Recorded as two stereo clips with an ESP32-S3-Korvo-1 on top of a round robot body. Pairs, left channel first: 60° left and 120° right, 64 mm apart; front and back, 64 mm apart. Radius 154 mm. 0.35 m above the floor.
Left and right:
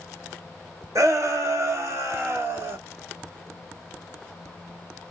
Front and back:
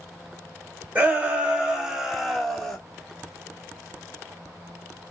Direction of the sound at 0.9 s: 120° right.